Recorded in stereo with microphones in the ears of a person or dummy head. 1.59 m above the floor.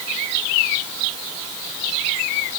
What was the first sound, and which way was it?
Only background noise.